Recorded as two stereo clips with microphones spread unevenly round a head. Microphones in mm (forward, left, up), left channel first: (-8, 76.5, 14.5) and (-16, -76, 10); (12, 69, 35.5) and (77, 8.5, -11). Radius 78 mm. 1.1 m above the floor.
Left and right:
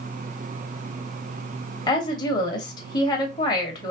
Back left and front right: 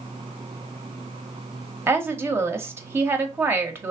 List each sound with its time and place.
1.9 s a woman speaking: 20° left, 0.9 m